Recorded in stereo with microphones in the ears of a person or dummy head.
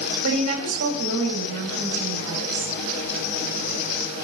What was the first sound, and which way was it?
A woman speaking, 85° right.